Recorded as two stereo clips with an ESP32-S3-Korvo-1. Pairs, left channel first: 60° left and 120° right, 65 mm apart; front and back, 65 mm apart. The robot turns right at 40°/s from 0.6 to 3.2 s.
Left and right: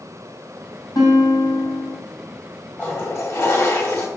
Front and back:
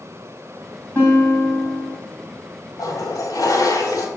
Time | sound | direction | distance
0.9 | a guitar | 60° left | 3 m
2.8 | a toilet flushing | straight ahead | 1.9 m